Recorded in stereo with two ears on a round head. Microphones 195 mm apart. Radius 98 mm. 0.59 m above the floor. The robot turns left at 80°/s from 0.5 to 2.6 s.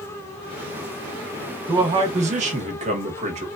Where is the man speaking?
30° right, 0.9 m; by 3.5 s 100° right, 0.9 m.